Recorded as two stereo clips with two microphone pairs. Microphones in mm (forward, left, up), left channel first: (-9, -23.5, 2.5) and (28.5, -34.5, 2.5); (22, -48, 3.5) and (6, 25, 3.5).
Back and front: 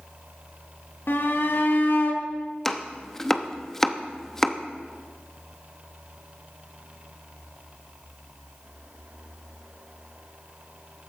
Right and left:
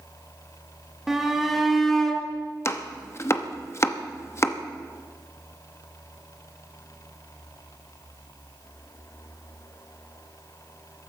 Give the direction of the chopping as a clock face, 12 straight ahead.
4 o'clock.